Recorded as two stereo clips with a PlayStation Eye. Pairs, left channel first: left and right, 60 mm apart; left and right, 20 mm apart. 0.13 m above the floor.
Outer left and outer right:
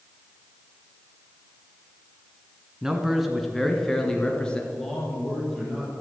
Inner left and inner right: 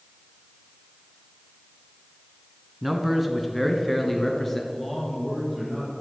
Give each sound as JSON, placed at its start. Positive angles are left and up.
{"t": 2.8, "sound": "a man speaking", "side_deg": -5, "distance_m": 1.4}
{"t": 4.7, "sound": "a man speaking", "side_deg": 5, "distance_m": 4.5}